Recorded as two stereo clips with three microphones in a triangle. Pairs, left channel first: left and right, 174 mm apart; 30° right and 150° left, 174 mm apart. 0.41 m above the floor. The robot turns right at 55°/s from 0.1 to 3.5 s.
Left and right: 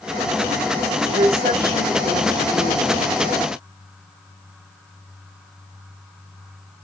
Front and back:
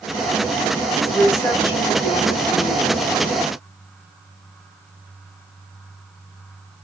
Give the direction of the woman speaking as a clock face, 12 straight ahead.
4 o'clock.